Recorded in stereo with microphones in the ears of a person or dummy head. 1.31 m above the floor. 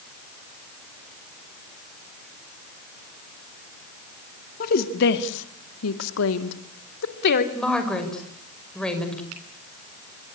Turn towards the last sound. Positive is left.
turn(degrees=-85)